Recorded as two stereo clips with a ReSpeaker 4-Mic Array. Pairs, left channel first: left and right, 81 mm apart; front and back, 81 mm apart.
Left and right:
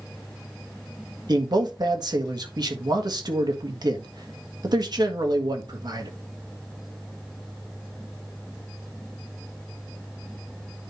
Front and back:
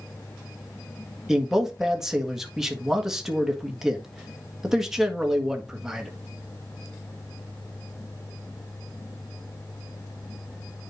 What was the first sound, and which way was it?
A man speaking, 95° right.